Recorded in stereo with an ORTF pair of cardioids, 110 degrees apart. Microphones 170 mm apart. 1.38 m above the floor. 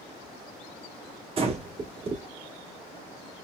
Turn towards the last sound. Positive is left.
turn(degrees=-35)